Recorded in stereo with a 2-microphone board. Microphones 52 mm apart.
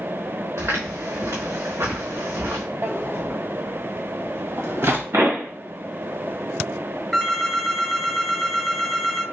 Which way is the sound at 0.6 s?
80° right.